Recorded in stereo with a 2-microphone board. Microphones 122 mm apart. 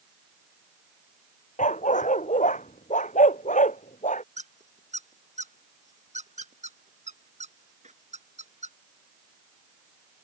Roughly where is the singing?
I don't hear singing.